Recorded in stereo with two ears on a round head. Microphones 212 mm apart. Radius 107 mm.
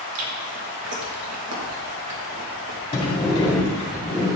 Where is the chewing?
75° right (ahead or behind), 1.7 m.